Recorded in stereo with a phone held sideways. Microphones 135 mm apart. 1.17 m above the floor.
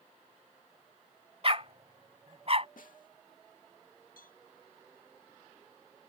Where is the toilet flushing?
No toilet flushing in this recording.